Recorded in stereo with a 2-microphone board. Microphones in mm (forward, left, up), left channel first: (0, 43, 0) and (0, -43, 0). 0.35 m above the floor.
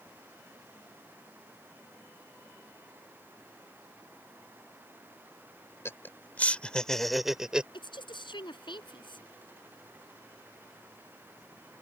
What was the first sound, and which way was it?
Laughter, 30° left (ahead or behind).